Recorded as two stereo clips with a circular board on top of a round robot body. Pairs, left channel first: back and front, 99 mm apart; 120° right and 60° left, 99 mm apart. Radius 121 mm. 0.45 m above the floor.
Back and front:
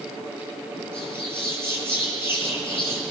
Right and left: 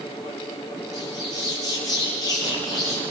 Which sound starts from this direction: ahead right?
A bird, at 0.9 s.